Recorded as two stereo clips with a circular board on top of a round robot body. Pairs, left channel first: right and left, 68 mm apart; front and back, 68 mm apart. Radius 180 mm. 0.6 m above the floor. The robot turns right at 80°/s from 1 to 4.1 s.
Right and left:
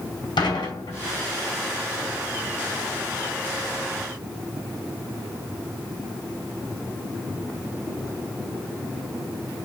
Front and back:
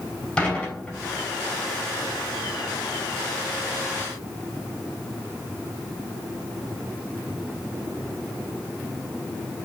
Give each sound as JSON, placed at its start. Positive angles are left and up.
{"t": 0.4, "sound": "dishes clattering", "azimuth_deg": -75, "distance_m": 4.5}